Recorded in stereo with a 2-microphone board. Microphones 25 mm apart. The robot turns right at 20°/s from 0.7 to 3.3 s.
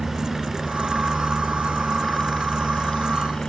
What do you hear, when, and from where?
0.0 s a helicopter: 5° right (ahead or behind); by 3.5 s 35° left (ahead or behind)